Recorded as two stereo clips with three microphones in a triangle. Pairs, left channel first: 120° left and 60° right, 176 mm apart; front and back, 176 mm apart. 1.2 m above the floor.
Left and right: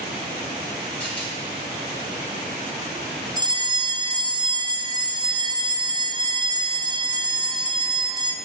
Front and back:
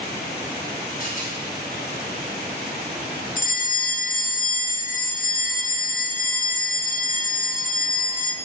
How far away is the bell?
About 0.7 m.